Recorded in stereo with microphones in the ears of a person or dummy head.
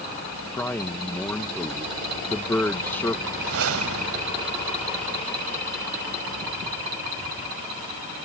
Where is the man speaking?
10° left (ahead or behind).